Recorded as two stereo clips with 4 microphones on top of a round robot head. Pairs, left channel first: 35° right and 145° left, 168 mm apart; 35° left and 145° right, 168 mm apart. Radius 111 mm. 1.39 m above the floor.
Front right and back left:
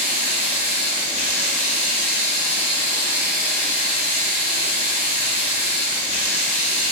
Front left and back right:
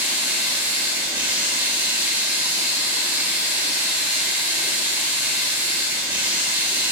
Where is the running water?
65° right, 3.5 m.